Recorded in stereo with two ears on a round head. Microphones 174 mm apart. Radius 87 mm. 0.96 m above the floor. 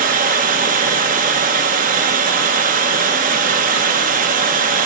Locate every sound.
0.0 s running water: 45° right (ahead or behind), 0.7 m